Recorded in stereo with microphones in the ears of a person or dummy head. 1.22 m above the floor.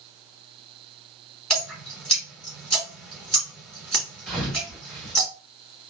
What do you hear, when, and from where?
1.5 s dripping: 5° left (ahead or behind), 1.5 m
4.3 s a thud: 5° left (ahead or behind), 1.7 m